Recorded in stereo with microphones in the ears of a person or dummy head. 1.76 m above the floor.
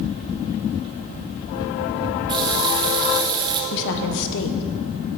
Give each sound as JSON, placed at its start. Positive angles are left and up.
{"t": 2.3, "sound": "a running tap", "side_deg": -25, "distance_m": 1.1}
{"t": 3.7, "sound": "a woman speaking", "side_deg": 65, "distance_m": 1.4}